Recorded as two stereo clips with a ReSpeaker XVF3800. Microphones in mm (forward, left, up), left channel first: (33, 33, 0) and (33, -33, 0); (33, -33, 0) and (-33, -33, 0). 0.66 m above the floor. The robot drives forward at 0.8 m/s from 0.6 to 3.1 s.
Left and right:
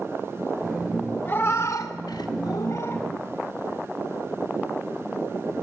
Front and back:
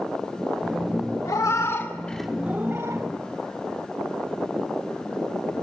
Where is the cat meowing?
30° left, 1.0 m; by 3.0 s 140° left, 0.8 m.